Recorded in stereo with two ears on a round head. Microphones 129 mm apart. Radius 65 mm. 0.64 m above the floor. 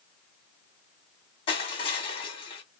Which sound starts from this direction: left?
Crushing, at 1.5 s.